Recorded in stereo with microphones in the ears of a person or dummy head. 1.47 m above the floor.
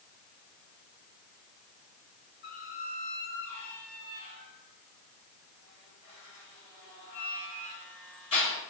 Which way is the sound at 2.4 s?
35° left (ahead or behind).